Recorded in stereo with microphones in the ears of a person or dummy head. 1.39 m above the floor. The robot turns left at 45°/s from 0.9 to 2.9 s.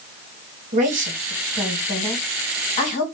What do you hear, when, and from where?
0.7 s a woman speaking: 40° right (ahead or behind), 1.4 m; by 3.0 s 50° left (ahead or behind), 1.4 m